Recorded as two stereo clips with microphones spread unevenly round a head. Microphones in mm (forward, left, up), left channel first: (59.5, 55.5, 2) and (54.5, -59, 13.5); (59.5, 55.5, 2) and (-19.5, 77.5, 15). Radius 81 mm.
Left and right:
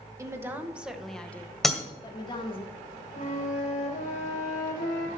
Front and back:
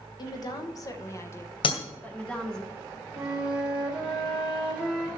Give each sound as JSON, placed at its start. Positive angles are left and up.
{"t": 0.2, "sound": "a woman speaking", "azimuth_deg": -30, "distance_m": 1.3}
{"t": 1.6, "sound": "breaking glass", "azimuth_deg": 0, "distance_m": 1.9}
{"t": 3.1, "sound": "a flute", "azimuth_deg": 85, "distance_m": 3.0}